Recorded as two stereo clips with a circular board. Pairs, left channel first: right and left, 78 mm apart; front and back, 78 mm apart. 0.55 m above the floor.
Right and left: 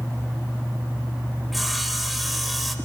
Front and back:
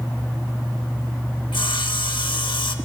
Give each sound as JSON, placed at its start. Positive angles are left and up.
{"t": 1.5, "sound": "sawing", "azimuth_deg": 0, "distance_m": 0.6}